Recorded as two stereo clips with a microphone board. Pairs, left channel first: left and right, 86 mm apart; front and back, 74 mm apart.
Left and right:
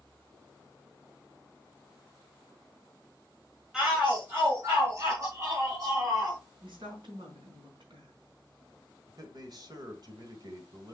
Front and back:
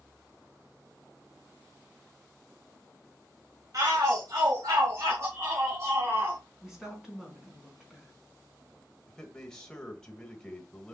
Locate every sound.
3.7 s a shout: 170° right, 2 m; by 6.4 s 125° right, 4 m
6.6 s a woman speaking: 95° right, 4 m
9.1 s a man speaking: 80° right, 1.5 m